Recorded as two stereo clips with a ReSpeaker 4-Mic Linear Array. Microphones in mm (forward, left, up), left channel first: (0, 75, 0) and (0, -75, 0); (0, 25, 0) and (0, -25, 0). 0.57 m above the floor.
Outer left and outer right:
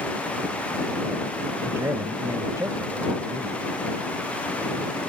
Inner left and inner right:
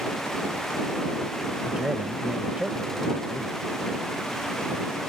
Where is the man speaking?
20° right (ahead or behind).